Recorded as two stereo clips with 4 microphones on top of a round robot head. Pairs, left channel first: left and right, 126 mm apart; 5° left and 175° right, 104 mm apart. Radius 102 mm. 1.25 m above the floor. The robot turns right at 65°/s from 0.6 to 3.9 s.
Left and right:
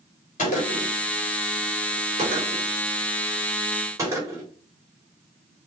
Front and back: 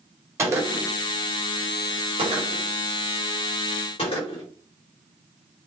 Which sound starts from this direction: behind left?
A gunshot, at 0.4 s.